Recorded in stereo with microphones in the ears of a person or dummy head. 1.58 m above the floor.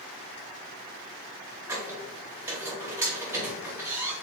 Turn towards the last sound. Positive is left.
turn(degrees=-15)  # may be behind; listen again after turning